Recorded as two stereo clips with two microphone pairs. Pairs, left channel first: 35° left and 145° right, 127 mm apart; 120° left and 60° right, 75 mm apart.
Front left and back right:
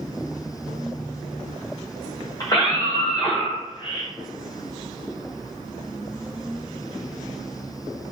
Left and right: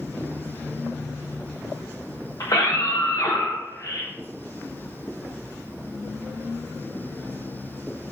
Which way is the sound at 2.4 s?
95° left.